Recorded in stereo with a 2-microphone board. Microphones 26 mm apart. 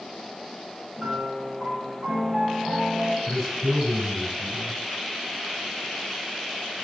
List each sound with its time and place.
1.0 s a piano: 50° right (ahead or behind), 1.3 m
3.3 s a man speaking: 5° right (ahead or behind), 2.5 m